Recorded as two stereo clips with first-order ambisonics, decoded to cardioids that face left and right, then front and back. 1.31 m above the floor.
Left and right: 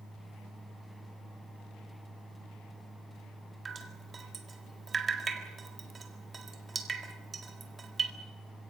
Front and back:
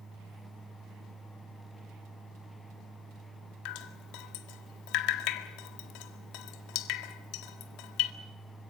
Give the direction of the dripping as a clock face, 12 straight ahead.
1 o'clock.